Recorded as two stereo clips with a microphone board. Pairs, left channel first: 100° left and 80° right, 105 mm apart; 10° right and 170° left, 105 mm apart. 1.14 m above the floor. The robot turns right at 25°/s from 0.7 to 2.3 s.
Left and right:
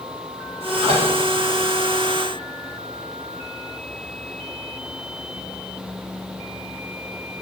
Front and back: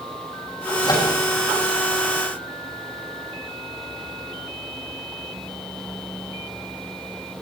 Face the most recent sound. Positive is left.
turn(degrees=-25)